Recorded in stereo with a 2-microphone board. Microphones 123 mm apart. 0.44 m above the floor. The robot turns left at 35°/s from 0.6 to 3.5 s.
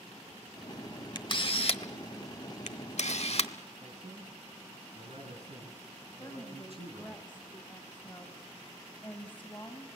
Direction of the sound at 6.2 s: 15° left (ahead or behind).